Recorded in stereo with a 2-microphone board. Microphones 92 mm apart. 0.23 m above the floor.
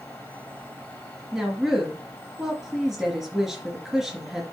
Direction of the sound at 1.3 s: Centre (ahead or behind).